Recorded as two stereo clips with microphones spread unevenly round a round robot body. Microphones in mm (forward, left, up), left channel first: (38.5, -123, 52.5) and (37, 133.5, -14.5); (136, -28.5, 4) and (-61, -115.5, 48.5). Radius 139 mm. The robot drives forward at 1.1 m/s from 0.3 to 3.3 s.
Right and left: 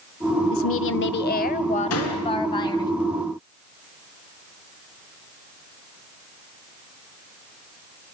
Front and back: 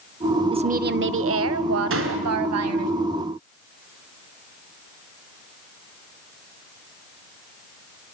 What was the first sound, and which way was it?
A woman speaking, 85° right.